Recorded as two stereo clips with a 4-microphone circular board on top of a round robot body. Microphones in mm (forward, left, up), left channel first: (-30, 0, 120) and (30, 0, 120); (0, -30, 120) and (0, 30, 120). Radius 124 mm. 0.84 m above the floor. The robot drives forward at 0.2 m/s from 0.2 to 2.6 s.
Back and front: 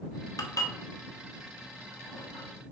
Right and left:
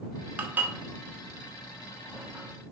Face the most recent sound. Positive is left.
turn(degrees=160)